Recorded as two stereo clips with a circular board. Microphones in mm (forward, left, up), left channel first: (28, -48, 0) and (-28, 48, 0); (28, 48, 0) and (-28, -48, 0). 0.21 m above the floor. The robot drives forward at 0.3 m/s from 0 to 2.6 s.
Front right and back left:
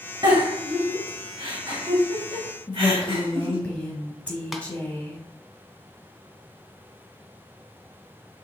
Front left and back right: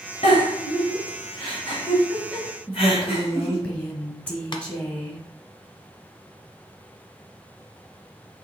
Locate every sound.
0.2 s a giggle: 65° left, 2.5 m; by 3.6 s 85° left, 2 m
2.7 s a woman speaking: straight ahead, 1.3 m
4.5 s tapping: 30° left, 0.8 m